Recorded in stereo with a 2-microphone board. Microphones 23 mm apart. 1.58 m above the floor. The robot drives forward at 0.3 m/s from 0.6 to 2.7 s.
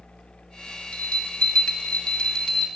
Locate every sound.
0.9 s a bell: 55° left (ahead or behind), 1.3 m; by 2.7 s 40° left (ahead or behind), 1.6 m